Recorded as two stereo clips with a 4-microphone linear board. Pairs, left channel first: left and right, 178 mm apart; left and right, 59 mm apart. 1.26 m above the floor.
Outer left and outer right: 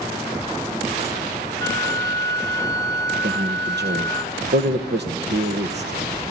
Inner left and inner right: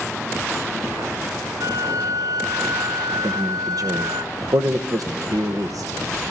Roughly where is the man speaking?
Right.